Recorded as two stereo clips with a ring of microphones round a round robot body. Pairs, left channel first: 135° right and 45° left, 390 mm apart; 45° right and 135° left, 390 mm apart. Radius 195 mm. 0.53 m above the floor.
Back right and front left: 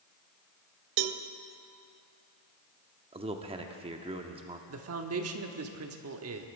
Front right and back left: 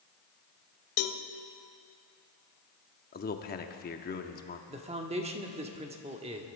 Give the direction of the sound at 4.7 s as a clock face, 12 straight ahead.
10 o'clock.